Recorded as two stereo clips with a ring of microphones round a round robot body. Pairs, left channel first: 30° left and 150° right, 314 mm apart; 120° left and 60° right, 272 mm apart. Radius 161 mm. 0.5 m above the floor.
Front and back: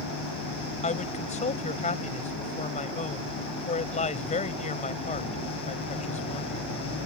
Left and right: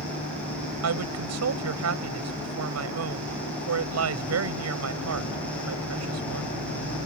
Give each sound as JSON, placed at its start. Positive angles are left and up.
{"t": 0.8, "sound": "a woman speaking", "azimuth_deg": -40}